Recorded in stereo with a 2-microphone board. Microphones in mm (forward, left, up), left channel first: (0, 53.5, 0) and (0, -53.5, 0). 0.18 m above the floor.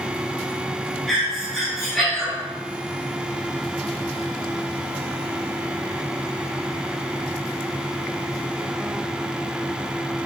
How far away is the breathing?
About 0.8 m.